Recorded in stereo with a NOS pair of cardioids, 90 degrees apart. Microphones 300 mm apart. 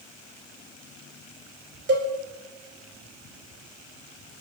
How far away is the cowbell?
About 4 m.